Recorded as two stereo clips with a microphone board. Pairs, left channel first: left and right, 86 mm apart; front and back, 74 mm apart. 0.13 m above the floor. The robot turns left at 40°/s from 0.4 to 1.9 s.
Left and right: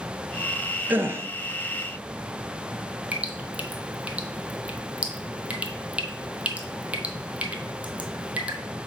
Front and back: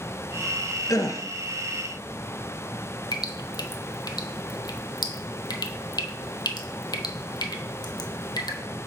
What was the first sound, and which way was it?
A gasp, 25° right.